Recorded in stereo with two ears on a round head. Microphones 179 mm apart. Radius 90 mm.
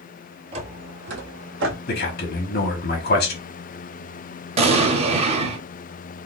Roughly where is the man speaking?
Left.